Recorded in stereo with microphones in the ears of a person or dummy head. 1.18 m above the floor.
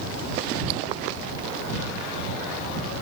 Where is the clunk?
I don't hear a clunk.